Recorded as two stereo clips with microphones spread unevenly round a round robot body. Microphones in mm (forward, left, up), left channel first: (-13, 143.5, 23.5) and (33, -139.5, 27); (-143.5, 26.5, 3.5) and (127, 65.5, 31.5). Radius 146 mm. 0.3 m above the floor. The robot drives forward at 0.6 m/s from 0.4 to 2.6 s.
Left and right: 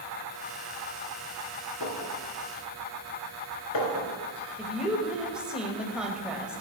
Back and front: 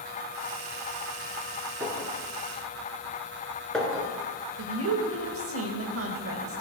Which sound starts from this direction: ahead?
A woman speaking, at 4.6 s.